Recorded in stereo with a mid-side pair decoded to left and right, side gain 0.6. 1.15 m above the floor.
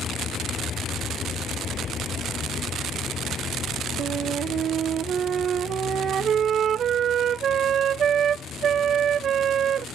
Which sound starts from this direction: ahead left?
A vehicle, at 0.0 s.